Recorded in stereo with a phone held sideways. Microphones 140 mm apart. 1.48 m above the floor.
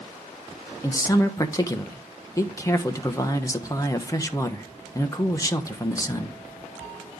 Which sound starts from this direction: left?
A man speaking, at 0.8 s.